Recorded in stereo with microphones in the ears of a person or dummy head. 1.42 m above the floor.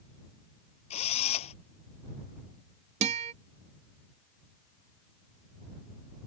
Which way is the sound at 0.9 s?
40° left (ahead or behind).